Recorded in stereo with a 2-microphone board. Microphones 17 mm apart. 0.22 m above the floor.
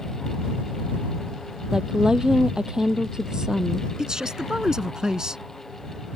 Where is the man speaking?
40° right (ahead or behind).